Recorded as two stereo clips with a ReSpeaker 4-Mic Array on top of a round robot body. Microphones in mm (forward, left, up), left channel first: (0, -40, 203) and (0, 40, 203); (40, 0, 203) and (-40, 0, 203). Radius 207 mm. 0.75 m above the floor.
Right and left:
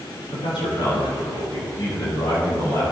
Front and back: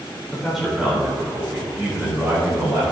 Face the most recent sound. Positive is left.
turn(degrees=-125)